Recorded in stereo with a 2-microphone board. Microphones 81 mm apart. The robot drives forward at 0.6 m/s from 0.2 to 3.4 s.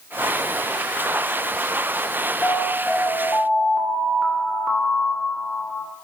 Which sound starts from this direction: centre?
An alarm, at 2.4 s.